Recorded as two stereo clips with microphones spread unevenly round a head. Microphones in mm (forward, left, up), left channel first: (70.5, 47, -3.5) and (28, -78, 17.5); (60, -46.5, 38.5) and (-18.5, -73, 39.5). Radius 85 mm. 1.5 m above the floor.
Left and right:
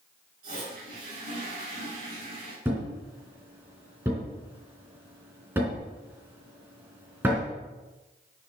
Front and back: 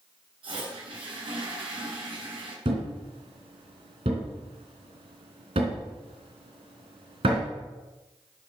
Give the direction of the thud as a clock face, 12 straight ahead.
6 o'clock.